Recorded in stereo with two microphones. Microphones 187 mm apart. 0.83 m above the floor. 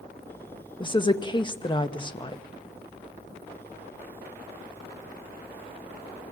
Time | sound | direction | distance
0.8 | a woman speaking | 25° left (ahead or behind) | 0.7 m